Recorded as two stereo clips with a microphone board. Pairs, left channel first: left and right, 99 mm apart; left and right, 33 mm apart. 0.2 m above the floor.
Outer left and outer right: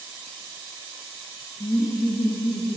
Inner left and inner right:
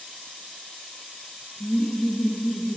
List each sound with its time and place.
1.6 s laughter: 60° left (ahead or behind), 4 m; by 2.8 s 50° left (ahead or behind), 3.5 m